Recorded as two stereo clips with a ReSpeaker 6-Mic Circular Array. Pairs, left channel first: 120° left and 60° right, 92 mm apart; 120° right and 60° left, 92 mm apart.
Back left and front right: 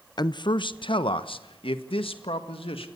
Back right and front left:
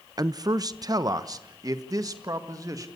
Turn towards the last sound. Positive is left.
turn(degrees=110)